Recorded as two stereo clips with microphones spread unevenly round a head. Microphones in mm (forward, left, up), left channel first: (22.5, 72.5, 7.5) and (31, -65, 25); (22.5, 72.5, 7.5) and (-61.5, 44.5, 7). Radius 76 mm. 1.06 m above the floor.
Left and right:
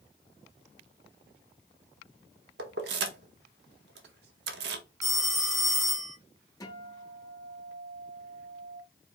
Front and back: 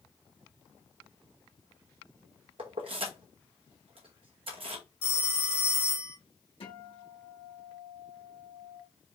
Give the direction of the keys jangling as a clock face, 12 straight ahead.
4 o'clock.